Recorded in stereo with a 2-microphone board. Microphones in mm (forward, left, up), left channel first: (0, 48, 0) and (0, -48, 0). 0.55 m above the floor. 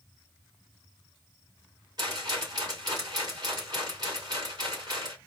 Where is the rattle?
45° right (ahead or behind), 2.5 m.